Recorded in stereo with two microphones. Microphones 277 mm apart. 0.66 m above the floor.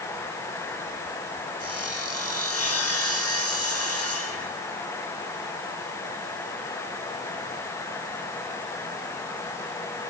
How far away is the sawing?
About 6 m.